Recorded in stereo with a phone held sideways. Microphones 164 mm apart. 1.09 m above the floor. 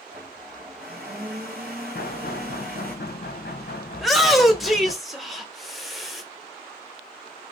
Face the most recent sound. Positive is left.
turn(degrees=0)  # may be behind; listen again after turning